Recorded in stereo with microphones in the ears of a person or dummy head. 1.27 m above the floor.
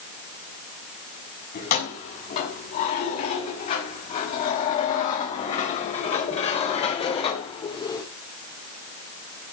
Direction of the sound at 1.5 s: 50° left (ahead or behind).